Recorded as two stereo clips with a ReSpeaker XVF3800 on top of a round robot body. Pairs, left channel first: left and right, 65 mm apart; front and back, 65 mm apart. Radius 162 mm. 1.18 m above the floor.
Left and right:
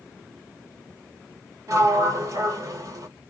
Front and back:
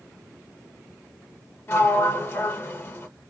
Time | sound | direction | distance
1.7 | a sliding door | 50° right | 1.5 m